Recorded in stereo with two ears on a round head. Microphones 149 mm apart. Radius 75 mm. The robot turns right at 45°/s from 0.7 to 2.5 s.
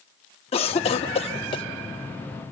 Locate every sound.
0.5 s a cough: 35° left (ahead or behind), 0.8 m; by 1.6 s 30° left (ahead or behind), 0.8 m